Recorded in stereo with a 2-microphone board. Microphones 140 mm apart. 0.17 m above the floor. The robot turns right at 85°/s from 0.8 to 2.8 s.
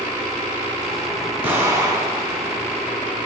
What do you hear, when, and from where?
1.4 s an explosion: 15° right (ahead or behind), 0.6 m; by 2.4 s 20° right (ahead or behind), 0.6 m